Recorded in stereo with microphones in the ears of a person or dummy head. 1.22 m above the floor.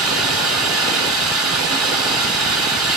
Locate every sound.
0.0 s running water: 5° right (ahead or behind), 2.5 m